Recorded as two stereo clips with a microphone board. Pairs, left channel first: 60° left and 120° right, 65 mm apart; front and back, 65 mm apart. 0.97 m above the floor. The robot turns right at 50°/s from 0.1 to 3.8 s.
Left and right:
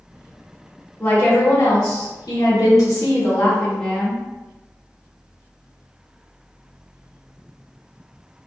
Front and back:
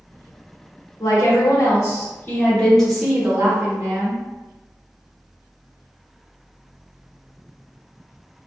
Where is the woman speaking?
5° right, 1.3 m; by 4.2 s 135° left, 1.3 m.